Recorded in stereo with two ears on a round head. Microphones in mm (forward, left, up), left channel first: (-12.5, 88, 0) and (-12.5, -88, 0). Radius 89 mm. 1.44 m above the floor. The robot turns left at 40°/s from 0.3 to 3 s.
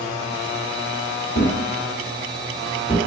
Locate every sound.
1.4 s a thud: 40° left (ahead or behind), 1.1 m; by 3.0 s 20° left (ahead or behind), 1.1 m